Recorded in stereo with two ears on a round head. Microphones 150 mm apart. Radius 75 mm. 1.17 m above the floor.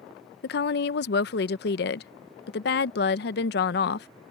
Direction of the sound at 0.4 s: 65° left (ahead or behind).